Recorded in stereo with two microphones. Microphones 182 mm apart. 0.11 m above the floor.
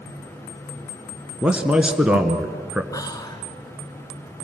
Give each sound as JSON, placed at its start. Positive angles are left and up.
{"t": 1.4, "sound": "a man speaking", "side_deg": -5, "distance_m": 1.3}
{"t": 2.9, "sound": "whispering", "side_deg": 20, "distance_m": 1.1}